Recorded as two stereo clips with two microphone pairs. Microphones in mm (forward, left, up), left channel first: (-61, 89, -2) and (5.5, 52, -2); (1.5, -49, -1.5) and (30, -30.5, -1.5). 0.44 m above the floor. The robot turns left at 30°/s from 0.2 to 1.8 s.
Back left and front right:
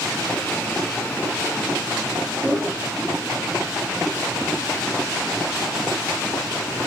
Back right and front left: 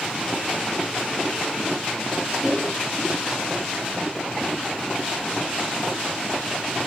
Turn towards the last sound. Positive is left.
turn(degrees=-140)